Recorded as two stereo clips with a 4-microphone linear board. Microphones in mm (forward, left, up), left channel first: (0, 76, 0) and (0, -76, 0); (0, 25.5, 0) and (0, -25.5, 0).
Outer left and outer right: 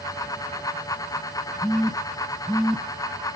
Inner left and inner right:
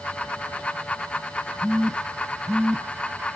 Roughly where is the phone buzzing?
Centre.